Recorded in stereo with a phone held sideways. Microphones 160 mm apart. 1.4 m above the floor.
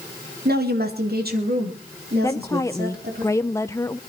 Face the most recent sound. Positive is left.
turn(degrees=20)  # may be behind; listen again after turning